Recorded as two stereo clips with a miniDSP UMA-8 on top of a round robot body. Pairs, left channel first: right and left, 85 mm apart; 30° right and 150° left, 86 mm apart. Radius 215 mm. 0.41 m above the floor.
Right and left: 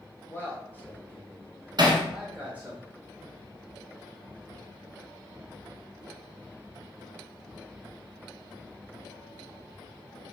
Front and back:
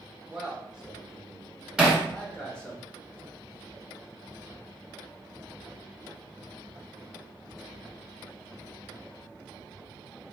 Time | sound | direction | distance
0.3 | a man speaking | 135° right | 1.5 m
1.8 | hammering | 65° left | 1.2 m